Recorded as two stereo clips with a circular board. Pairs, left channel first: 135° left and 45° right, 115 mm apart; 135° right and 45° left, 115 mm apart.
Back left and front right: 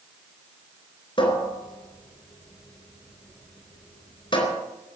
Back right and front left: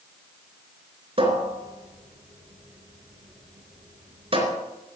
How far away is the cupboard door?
About 3.5 m.